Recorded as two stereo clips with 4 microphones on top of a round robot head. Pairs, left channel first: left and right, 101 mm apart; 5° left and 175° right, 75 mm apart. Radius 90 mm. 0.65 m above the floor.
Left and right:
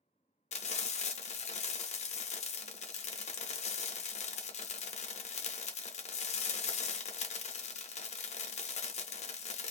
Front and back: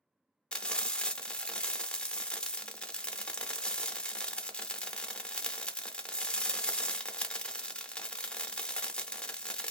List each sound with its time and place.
0.5 s frying: 85° left, 0.8 m